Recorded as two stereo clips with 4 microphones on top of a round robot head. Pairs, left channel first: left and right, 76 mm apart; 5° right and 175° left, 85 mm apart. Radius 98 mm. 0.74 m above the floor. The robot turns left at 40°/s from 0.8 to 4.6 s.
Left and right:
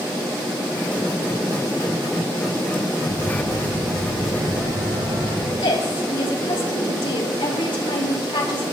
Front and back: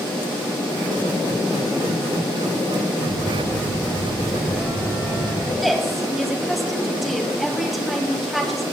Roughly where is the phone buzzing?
Ahead right.